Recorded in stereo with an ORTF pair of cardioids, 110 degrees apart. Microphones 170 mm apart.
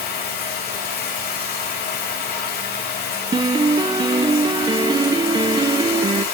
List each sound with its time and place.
0.0 s running water: 70° left, 6 m
3.3 s a piano: 25° right, 1.2 m